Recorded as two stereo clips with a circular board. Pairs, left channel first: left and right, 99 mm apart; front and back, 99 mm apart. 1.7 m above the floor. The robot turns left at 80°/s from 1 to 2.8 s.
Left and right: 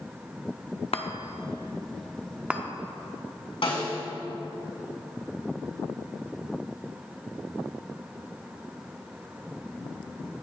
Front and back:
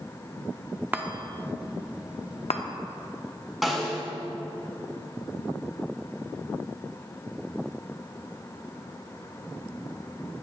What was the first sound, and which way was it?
A chime, 110° left.